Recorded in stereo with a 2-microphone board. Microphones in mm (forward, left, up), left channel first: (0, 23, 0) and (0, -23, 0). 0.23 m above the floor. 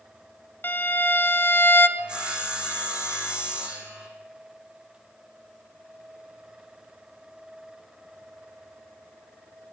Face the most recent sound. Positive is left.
turn(degrees=-20)  # may be behind; listen again after turning